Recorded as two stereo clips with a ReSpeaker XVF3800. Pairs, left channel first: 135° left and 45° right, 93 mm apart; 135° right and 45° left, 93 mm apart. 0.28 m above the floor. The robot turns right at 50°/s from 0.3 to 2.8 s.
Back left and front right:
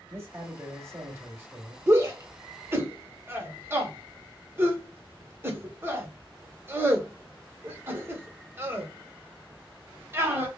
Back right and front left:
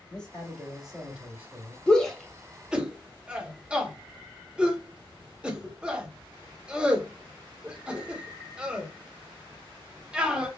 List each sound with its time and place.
0.1 s a man speaking: 65° right, 1.6 m; by 1.8 s 10° left, 1.6 m
1.9 s a shout: 70° right, 1.0 m; by 10.5 s 20° right, 1.0 m